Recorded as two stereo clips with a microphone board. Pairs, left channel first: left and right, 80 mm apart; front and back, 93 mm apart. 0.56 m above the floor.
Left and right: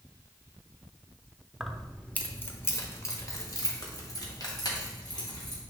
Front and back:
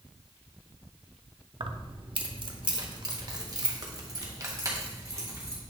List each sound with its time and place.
1.6 s keys jangling: straight behind, 0.7 m; by 5.6 s 120° left, 2.5 m